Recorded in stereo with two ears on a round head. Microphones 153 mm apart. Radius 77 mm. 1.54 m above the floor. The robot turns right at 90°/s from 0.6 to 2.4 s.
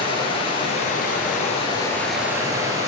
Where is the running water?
40° left, 2.5 m; by 2.9 s 155° right, 2.5 m.